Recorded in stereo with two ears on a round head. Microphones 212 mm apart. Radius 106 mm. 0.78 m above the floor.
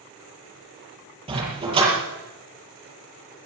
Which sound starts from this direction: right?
A dog barking, at 1.3 s.